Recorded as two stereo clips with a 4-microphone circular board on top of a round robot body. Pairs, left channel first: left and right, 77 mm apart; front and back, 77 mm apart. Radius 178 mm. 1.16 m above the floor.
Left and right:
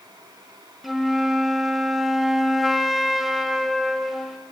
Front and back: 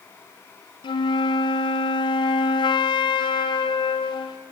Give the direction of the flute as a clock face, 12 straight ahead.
12 o'clock.